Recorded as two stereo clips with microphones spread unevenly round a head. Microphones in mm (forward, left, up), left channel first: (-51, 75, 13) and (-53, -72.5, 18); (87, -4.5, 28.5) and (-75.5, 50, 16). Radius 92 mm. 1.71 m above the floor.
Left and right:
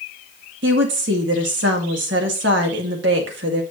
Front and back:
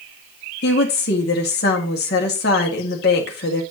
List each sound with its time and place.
0.6 s a woman speaking: 60° right, 1.8 m